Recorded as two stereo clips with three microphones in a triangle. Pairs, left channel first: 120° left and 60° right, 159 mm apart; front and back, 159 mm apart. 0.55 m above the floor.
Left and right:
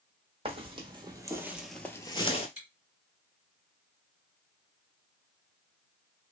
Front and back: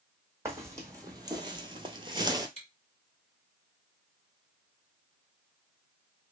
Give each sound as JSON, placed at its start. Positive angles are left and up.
{"t": 0.5, "sound": "footsteps", "azimuth_deg": -110, "distance_m": 1.2}
{"t": 2.6, "sound": "chewing", "azimuth_deg": -35, "distance_m": 1.7}